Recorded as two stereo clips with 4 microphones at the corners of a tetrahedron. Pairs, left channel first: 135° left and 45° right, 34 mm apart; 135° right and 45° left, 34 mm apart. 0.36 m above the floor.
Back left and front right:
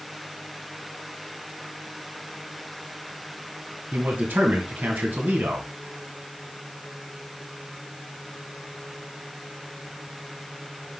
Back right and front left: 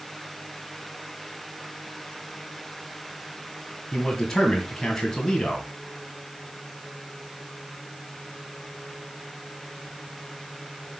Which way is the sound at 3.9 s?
60° right.